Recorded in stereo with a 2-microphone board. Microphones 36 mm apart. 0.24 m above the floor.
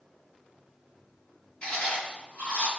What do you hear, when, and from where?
1.6 s chewing: 35° left (ahead or behind), 1.7 m